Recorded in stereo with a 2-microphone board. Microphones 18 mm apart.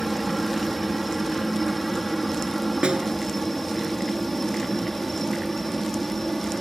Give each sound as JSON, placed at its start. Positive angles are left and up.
{"t": 0.0, "sound": "a helicopter", "side_deg": 10}
{"t": 2.8, "sound": "a snare drum", "side_deg": -80}